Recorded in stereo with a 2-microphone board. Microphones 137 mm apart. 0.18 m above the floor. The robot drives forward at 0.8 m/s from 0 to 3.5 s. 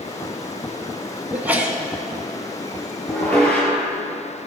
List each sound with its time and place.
1.3 s a sneeze: 15° right (ahead or behind), 1.4 m; by 1.8 s 10° right (ahead or behind), 1.6 m
3.1 s dishes clattering: 10° left (ahead or behind), 2 m